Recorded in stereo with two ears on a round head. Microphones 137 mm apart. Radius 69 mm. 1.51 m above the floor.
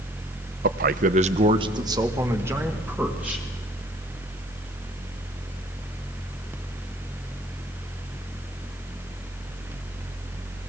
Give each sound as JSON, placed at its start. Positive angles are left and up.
{"t": 0.6, "sound": "a man speaking", "side_deg": -60, "distance_m": 0.7}